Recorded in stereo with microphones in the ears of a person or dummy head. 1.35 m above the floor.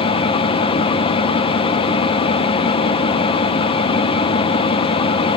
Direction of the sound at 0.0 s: 30° left (ahead or behind).